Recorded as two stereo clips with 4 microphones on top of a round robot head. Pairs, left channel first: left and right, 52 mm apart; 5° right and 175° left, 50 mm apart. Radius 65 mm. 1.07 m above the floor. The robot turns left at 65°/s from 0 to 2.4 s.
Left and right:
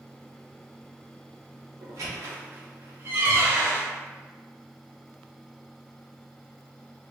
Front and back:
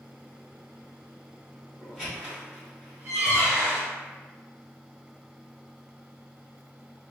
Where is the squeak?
95° right, 0.7 m; by 3.9 s 130° right, 0.7 m.